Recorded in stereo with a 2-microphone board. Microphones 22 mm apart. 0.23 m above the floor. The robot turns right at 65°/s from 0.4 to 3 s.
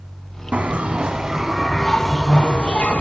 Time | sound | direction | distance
0.5 | a bell | 80° right | 0.6 m